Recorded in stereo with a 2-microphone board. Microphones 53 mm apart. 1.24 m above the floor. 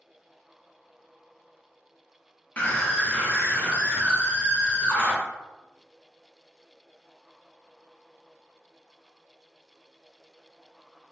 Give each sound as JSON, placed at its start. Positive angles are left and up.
{"t": 2.6, "sound": "a scream", "side_deg": 30, "distance_m": 0.5}